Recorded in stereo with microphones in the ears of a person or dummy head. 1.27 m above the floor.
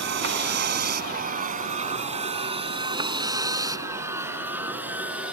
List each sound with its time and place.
0.0 s a vehicle: 60° right (ahead or behind); by 5.3 s 5° right (ahead or behind)